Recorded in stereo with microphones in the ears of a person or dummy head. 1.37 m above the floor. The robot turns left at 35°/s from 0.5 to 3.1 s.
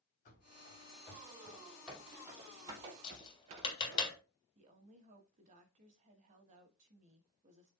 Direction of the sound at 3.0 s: 30° left (ahead or behind).